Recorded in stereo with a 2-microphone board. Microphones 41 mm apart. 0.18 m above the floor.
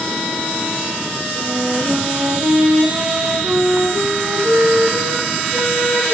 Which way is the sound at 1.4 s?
75° right (ahead or behind).